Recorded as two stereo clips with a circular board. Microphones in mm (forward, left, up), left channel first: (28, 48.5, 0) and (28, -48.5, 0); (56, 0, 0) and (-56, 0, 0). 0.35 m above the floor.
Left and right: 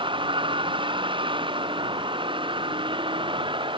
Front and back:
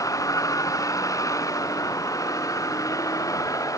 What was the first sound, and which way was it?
A vehicle, 60° right.